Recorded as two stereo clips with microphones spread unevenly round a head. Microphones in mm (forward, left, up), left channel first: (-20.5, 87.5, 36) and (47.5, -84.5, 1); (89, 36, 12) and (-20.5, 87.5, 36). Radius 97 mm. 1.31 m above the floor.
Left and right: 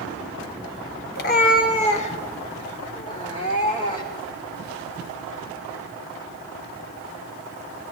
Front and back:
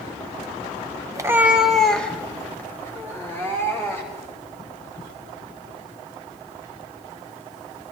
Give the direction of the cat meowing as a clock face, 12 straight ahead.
8 o'clock.